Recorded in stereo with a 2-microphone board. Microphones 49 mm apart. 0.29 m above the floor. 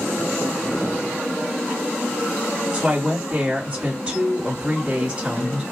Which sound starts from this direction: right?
A woman speaking, at 2.7 s.